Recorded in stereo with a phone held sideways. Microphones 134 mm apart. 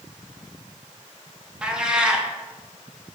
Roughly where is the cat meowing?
Centre.